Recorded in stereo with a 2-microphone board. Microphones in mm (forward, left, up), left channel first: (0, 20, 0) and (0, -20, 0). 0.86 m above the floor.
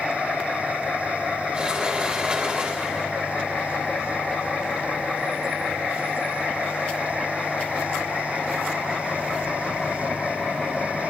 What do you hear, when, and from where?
1.5 s a sliding door: 25° right (ahead or behind), 1.2 m